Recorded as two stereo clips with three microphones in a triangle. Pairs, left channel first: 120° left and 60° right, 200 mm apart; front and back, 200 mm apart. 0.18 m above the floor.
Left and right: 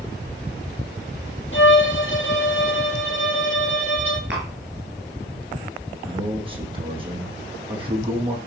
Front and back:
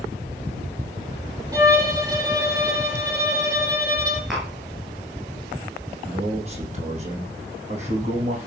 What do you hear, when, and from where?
1.5 s a violin: 110° left, 4.5 m
4.3 s tapping: 90° right, 7.5 m
6.0 s a man speaking: 125° right, 6.5 m